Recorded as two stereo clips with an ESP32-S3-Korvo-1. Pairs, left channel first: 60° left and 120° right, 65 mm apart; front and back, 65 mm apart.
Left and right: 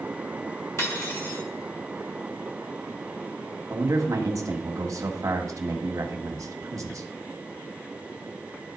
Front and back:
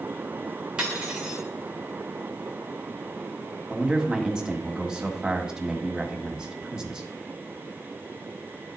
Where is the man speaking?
105° right, 1.2 m.